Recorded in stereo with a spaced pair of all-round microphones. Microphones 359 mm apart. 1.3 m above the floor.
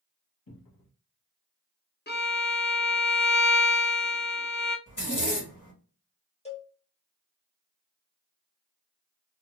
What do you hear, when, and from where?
0.5 s a cupboard door: 80° left, 1.1 m
2.1 s a violin: 30° left (ahead or behind), 0.6 m
4.9 s a zipper: 60° left (ahead or behind), 1.3 m
6.5 s a cowbell: 20° left (ahead or behind), 0.7 m